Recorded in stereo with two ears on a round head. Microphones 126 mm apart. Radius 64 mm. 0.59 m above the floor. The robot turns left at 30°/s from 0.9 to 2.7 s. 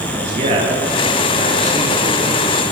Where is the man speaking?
125° right, 10 m; by 2.4 s 170° right, 10 m.